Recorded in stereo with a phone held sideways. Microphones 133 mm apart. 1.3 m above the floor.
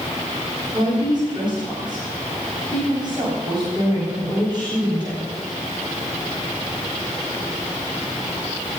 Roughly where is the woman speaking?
Right.